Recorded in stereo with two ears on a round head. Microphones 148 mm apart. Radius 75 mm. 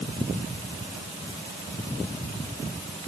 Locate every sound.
Only background noise.